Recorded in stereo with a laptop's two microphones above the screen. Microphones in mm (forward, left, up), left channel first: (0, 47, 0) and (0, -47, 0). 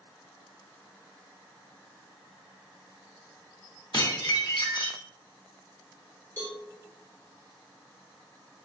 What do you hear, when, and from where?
3.9 s dishes clattering: 55° left (ahead or behind), 0.9 m
6.4 s a cowbell: 20° left (ahead or behind), 1.3 m